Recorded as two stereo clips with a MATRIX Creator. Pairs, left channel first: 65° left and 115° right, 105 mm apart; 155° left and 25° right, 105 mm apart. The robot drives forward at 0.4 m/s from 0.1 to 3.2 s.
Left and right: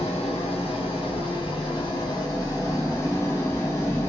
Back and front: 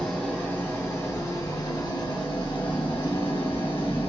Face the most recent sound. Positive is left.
turn(degrees=130)